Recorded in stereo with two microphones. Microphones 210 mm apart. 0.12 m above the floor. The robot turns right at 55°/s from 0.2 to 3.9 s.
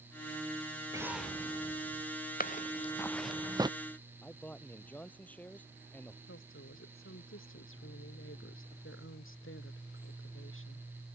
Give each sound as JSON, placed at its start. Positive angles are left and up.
{"t": 0.9, "sound": "an explosion", "azimuth_deg": -15}
{"t": 2.4, "sound": "footsteps", "side_deg": 45}
{"t": 4.2, "sound": "a man speaking", "side_deg": 5}
{"t": 6.3, "sound": "a woman speaking", "side_deg": 75}